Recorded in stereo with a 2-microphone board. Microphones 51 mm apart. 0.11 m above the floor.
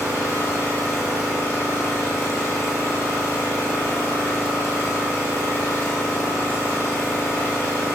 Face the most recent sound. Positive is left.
turn(degrees=55)  # may be behind; listen again after turning